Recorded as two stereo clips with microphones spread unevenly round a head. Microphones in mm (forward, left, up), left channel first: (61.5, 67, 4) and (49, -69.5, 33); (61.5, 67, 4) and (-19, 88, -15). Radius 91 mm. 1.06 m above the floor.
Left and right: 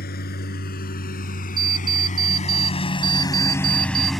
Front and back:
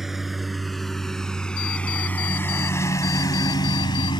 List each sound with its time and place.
0.0 s a lawn mower: 75° left; by 4.2 s 10° right
1.6 s an alarm clock: 40° right